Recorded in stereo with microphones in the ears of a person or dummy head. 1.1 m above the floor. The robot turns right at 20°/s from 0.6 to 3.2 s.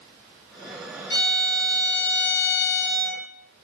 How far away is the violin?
About 2 m.